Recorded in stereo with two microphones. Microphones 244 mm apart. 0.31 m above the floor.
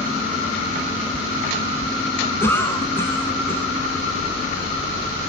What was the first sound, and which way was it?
A cough, 10° left (ahead or behind).